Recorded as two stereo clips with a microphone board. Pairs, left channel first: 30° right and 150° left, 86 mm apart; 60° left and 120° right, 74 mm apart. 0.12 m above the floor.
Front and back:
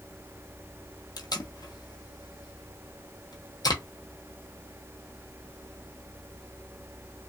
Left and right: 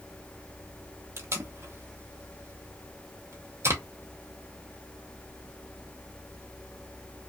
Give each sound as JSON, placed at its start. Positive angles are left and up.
{"t": 1.2, "sound": "tape being pulled", "azimuth_deg": -70, "distance_m": 0.7}